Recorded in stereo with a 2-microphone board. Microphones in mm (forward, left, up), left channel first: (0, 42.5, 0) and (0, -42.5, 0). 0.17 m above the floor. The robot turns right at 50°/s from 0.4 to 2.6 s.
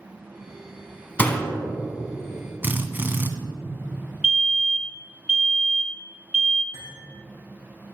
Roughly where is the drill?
Right.